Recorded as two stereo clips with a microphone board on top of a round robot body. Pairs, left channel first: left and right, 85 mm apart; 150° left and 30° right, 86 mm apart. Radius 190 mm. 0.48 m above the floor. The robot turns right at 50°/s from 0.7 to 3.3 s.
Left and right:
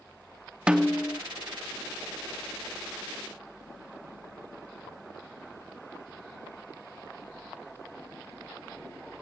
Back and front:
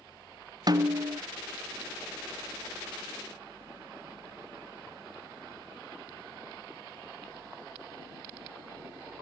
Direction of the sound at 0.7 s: 15° right.